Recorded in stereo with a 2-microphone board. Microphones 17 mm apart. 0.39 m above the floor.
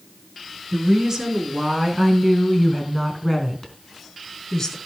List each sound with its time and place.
0.7 s a woman speaking: 30° right (ahead or behind), 4 m; by 4.8 s 35° left (ahead or behind), 4 m